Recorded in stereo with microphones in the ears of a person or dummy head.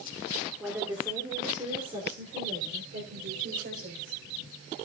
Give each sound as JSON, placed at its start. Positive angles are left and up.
{"t": 0.6, "sound": "a woman speaking", "side_deg": -10, "distance_m": 3.0}